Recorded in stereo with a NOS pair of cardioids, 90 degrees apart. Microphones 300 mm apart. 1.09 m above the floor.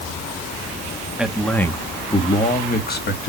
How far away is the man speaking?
About 1.7 m.